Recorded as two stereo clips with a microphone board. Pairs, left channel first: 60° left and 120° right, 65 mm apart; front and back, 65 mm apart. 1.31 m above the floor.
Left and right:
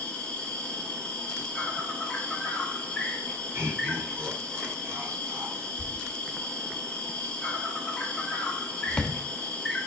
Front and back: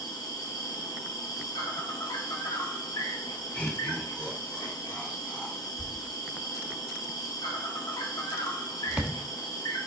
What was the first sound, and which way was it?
An insect, 15° right.